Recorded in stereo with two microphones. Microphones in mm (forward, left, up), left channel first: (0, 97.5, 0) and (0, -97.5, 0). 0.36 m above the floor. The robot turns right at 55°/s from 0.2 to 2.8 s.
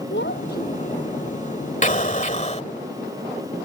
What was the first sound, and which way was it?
A child speaking, 100° left.